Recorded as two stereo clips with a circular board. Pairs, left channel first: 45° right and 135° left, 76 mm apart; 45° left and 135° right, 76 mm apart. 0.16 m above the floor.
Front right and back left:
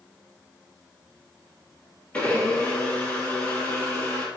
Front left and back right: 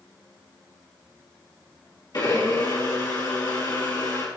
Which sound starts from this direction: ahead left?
A blender, at 2.1 s.